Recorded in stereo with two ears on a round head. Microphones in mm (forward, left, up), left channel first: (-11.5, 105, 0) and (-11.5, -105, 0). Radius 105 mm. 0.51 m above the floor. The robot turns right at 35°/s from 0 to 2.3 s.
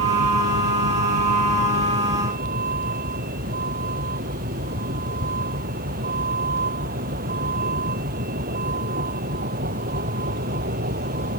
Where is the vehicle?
120° right; by 11.4 s 40° right.